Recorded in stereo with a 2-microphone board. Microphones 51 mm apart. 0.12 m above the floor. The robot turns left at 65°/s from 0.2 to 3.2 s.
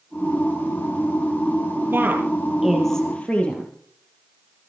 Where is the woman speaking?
50° right (ahead or behind), 3.5 m; by 3.7 s 25° left (ahead or behind), 3.5 m.